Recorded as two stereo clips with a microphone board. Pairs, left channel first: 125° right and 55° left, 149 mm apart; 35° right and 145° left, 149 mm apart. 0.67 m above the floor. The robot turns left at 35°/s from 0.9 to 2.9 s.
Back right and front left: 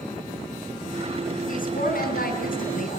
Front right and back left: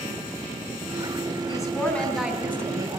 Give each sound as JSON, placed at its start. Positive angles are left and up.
{"t": 1.5, "sound": "a woman speaking", "azimuth_deg": -100, "distance_m": 5.5}